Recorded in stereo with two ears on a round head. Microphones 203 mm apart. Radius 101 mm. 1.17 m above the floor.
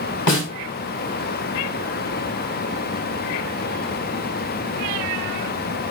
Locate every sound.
0.3 s a snare drum: 85° left, 3 m